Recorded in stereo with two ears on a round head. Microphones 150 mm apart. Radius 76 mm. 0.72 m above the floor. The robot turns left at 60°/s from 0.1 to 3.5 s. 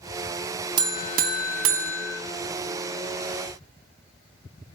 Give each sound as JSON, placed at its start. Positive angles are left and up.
{"t": 0.8, "sound": "a buzzer", "azimuth_deg": -25, "distance_m": 0.6}